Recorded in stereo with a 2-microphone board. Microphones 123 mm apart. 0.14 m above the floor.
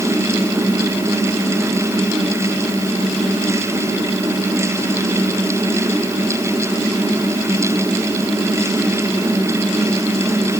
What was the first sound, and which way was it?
Only background noise.